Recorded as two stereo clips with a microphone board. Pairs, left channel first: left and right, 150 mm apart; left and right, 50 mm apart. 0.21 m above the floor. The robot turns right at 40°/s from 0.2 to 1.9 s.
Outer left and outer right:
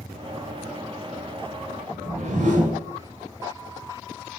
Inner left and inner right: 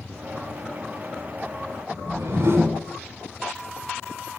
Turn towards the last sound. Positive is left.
turn(degrees=-55)  # may be behind; listen again after turning